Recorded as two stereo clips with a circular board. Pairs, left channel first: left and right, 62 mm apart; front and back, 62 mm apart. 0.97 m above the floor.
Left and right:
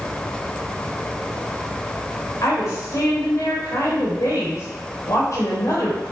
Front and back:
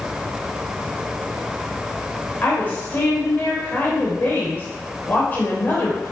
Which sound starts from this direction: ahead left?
A woman speaking, at 2.4 s.